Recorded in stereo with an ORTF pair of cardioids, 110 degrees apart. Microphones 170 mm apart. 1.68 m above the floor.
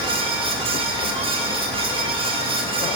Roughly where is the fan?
Ahead right.